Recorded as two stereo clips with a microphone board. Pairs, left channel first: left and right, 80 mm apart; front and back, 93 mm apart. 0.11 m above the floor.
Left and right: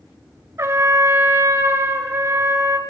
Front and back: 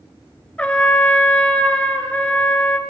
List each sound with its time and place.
0.6 s a trumpet: 70° right, 0.5 m